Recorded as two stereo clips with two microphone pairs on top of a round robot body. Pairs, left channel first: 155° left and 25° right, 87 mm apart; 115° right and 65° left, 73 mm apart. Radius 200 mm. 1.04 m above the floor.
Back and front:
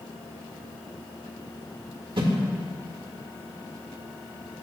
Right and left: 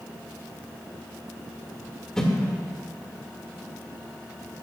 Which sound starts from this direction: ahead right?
A whoosh, at 2.2 s.